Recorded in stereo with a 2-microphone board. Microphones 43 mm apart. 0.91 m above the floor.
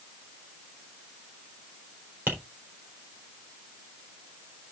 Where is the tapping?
45° right (ahead or behind), 4 m.